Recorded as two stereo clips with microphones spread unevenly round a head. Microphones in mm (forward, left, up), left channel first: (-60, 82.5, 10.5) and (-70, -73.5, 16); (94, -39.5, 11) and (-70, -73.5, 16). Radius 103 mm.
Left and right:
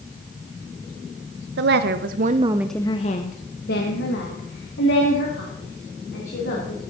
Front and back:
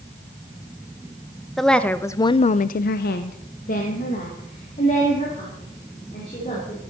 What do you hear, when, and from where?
1.6 s a woman speaking: 75° right, 1.0 m; by 6.8 s 75° left, 3.5 m